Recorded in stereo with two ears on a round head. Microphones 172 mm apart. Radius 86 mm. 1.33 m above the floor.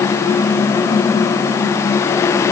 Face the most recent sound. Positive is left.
No sound to turn to.